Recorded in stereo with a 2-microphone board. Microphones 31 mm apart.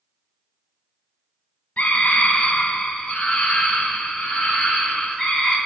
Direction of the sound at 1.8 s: 45° left (ahead or behind).